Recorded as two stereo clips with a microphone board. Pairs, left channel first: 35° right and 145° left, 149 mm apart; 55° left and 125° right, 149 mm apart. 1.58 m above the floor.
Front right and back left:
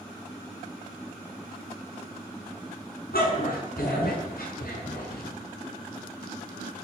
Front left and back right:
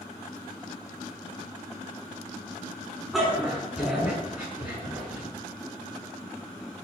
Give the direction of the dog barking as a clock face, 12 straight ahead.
1 o'clock.